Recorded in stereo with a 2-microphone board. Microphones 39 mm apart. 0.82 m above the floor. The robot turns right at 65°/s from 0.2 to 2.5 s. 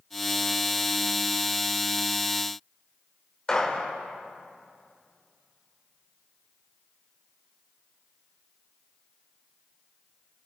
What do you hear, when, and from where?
3.5 s a gunshot: 15° left (ahead or behind), 3.5 m